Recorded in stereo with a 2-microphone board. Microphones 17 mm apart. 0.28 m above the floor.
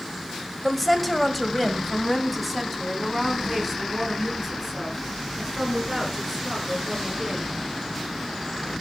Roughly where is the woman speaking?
Centre.